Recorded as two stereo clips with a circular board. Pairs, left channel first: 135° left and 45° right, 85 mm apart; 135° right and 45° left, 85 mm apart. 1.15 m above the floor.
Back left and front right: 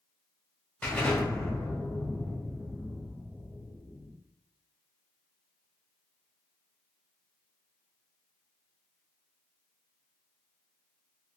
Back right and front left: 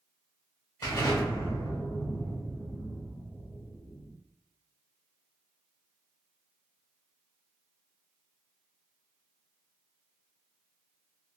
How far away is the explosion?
About 1.2 m.